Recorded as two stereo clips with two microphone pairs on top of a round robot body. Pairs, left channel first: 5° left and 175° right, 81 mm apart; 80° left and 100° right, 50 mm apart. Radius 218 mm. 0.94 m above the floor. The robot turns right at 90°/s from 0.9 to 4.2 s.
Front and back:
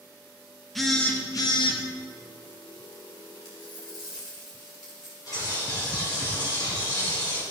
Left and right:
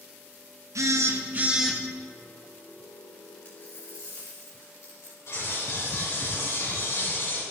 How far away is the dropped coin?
About 2.5 m.